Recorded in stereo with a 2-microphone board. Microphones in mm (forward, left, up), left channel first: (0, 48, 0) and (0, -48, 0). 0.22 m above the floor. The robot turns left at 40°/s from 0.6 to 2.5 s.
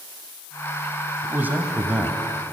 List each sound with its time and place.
1.2 s a man speaking: 20° right (ahead or behind), 1.1 m; by 2.5 s 10° right (ahead or behind), 1.1 m